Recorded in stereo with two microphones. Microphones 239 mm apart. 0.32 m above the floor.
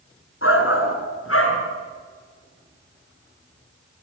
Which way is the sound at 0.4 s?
65° left (ahead or behind).